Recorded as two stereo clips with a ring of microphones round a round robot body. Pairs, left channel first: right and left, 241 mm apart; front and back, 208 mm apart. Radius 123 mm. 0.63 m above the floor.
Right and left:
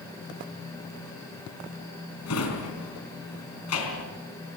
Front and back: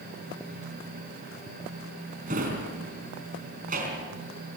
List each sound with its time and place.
2.3 s a drawer: 120° right, 4 m